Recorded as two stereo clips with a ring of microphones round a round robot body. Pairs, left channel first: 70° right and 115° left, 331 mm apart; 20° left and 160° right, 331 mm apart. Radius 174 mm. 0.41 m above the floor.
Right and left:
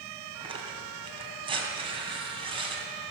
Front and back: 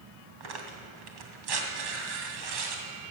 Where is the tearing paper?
170° right, 2.5 m.